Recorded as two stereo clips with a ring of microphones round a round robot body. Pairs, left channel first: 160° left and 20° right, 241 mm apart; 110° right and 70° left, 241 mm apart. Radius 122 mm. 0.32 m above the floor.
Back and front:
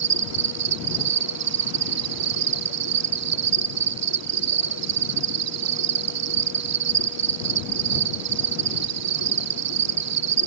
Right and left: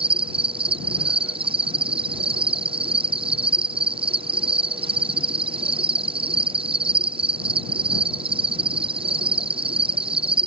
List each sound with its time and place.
0.0 s an insect: straight ahead